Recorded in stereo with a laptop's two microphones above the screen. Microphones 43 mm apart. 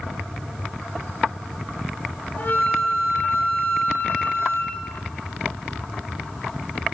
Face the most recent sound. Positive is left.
turn(degrees=50)  # may be behind; listen again after turning